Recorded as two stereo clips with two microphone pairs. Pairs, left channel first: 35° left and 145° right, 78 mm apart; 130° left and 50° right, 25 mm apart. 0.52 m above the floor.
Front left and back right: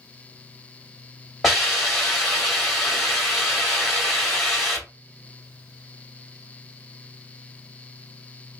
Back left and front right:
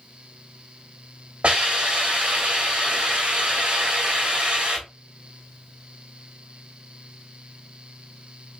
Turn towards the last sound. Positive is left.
turn(degrees=-55)